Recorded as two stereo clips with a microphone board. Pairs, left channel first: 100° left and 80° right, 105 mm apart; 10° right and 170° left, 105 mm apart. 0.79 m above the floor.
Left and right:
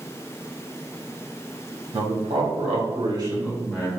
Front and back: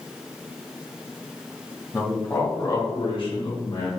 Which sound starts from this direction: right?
A man speaking, at 1.9 s.